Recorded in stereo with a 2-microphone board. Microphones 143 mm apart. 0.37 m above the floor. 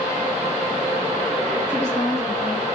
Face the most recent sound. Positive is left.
turn(degrees=50)  # may be behind; listen again after turning